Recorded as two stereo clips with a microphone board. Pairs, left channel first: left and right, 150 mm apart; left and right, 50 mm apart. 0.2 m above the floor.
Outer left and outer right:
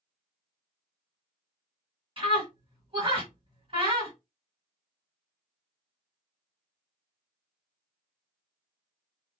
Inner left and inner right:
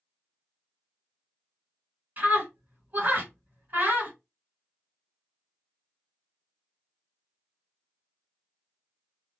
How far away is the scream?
About 2.5 m.